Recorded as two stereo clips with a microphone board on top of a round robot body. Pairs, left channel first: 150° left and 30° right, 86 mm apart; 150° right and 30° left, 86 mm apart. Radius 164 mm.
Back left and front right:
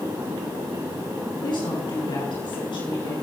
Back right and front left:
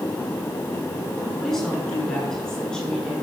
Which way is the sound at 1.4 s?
125° left.